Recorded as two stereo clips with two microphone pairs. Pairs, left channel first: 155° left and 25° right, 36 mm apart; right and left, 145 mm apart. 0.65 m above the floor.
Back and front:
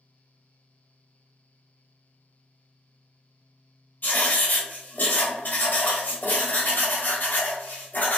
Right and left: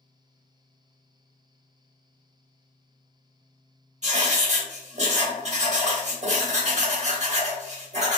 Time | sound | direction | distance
4.0 | writing | 125° left | 0.8 m